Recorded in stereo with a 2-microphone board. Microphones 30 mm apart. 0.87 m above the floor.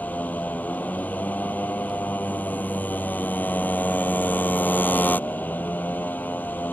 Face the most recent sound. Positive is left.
turn(degrees=85)